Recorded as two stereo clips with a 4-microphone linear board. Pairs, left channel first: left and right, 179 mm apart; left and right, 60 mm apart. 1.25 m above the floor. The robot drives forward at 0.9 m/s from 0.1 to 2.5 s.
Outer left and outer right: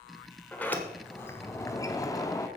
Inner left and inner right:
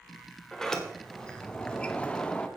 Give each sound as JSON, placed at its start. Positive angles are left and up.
{"t": 0.5, "sound": "a sliding door", "side_deg": 10, "distance_m": 1.6}